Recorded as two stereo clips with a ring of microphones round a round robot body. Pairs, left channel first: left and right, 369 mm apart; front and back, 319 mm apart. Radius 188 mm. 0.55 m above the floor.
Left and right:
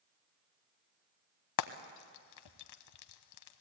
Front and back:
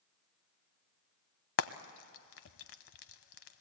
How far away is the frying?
About 0.7 m.